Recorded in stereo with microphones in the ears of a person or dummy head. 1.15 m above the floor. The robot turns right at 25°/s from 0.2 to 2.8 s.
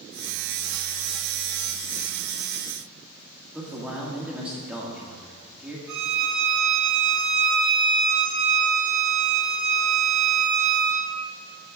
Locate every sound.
3.5 s a man speaking: 10° right (ahead or behind), 2 m
5.9 s a violin: 70° right (ahead or behind), 4 m